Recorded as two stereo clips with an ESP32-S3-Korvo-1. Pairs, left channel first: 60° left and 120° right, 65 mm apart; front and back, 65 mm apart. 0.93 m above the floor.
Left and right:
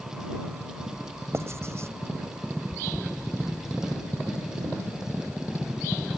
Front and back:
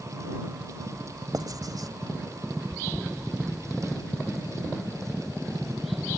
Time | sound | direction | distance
1.3 | writing | 165° right | ?